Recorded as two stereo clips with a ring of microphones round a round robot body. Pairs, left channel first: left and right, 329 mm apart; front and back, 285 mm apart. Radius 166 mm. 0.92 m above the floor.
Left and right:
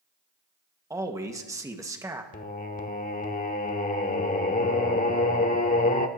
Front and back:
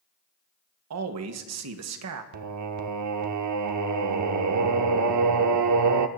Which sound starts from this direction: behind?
A man speaking, at 0.9 s.